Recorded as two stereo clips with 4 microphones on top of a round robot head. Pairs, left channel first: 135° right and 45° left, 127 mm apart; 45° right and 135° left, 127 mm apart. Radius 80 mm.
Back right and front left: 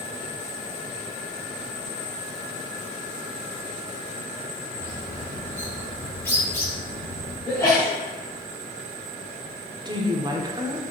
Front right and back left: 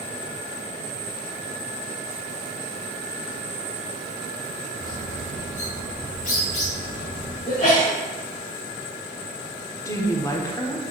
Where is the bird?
65° right, 3 m.